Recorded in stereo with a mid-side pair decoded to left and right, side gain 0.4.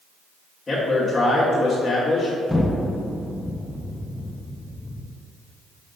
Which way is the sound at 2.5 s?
10° left.